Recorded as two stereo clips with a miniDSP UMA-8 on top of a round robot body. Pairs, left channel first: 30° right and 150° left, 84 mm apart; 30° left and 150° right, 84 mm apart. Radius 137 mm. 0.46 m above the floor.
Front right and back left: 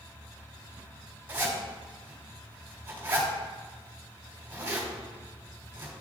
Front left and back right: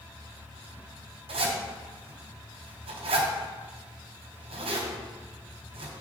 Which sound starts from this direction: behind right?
A zipper, at 1.3 s.